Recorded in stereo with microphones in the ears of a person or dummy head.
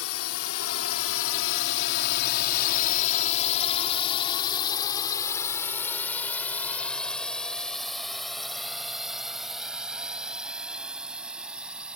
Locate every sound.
0.0 s a drone: 75° left (ahead or behind); by 12.0 s 5° right (ahead or behind)